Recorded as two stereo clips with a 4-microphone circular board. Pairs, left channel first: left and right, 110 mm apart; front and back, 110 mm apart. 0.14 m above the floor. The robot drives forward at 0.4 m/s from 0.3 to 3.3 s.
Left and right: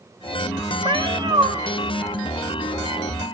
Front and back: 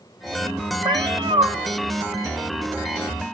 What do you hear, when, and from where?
0.8 s a cat meowing: 130° right, 1.4 m; by 1.5 s 140° right, 1.5 m